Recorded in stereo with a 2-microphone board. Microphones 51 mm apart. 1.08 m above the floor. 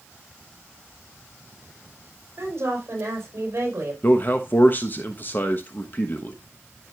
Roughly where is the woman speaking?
Right.